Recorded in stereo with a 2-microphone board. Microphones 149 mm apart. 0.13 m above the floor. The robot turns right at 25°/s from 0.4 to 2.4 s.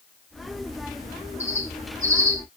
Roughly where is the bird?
Right.